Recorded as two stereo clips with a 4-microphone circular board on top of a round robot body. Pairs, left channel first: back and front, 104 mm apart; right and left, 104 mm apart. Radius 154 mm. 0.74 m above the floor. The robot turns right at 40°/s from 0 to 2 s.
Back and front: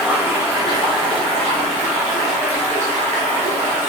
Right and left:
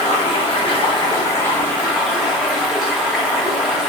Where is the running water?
80° right, 0.8 m; by 3.9 s straight ahead, 0.8 m.